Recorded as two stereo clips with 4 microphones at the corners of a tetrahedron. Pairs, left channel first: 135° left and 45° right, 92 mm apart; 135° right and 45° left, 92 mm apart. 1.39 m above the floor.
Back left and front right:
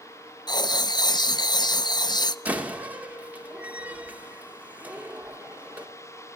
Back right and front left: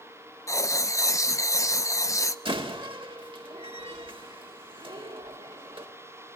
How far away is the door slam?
About 2.5 m.